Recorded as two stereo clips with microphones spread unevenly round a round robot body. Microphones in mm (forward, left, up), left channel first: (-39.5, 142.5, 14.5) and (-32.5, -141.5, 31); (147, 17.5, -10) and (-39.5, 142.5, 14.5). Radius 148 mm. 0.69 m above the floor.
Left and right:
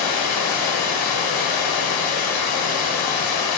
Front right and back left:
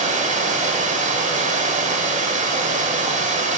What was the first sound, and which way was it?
Running water, 85° left.